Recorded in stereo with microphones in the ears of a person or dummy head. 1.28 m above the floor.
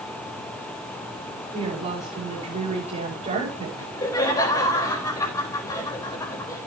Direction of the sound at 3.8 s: 20° left (ahead or behind).